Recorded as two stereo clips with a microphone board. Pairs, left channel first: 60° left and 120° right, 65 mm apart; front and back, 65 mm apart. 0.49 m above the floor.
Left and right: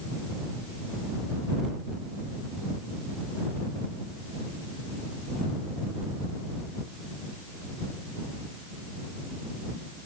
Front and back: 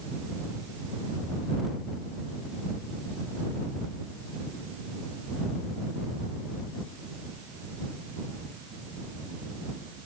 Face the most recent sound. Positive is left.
No sound to turn to.